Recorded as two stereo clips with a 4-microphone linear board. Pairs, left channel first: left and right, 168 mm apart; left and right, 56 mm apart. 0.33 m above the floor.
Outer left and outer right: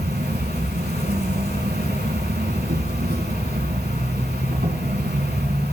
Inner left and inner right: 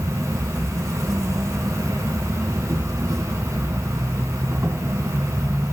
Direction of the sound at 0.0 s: 75° right (ahead or behind).